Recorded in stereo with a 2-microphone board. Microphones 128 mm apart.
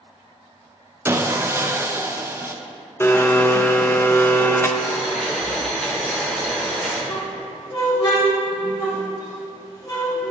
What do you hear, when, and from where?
1.1 s sawing: 20° right (ahead or behind), 0.5 m
3.0 s a blender: 20° left (ahead or behind), 0.6 m
4.8 s boiling: 5° left (ahead or behind), 2.5 m
7.1 s a squeak: 35° left (ahead or behind), 2.0 m